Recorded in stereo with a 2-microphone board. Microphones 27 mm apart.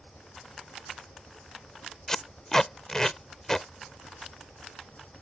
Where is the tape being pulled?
20° left (ahead or behind).